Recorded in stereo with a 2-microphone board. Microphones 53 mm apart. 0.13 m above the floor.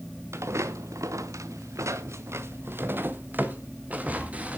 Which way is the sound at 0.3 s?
60° right (ahead or behind).